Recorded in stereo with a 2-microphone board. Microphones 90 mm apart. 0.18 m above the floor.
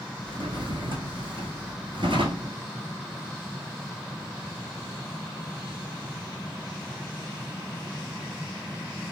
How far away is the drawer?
About 0.7 m.